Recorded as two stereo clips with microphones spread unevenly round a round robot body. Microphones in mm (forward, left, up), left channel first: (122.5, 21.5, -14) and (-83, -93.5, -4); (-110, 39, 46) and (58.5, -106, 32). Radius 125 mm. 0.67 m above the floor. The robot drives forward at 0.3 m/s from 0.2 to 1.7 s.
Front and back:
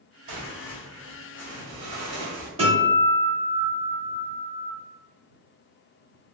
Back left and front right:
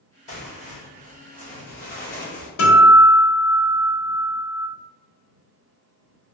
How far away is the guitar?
About 1.2 m.